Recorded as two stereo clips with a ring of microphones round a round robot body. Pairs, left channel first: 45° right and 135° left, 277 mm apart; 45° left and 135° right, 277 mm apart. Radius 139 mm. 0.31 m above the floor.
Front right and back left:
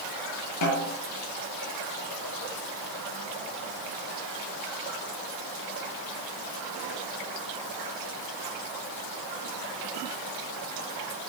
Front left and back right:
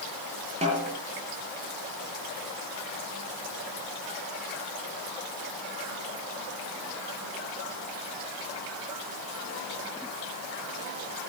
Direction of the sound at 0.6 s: 65° right.